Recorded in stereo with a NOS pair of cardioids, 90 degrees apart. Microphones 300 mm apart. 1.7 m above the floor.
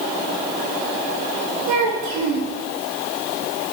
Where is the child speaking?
65° right, 2.5 m.